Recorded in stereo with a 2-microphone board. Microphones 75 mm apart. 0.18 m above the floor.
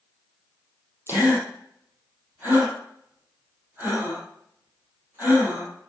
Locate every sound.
1.1 s a gasp: 30° right (ahead or behind), 4 m